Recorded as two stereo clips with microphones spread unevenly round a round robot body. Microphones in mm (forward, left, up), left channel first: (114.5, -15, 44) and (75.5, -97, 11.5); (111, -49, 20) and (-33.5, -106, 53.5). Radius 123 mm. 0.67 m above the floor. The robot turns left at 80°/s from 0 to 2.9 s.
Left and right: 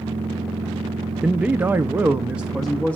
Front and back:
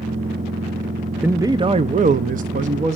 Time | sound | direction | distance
1.2 | a man speaking | 65° right | 0.6 m